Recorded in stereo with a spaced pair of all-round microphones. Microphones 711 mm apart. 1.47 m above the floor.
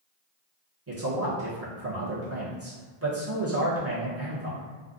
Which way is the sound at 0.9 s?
20° right (ahead or behind).